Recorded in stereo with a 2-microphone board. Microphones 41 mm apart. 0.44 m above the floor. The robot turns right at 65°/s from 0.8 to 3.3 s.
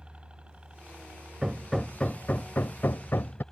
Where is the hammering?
15° right; by 3.4 s 105° left.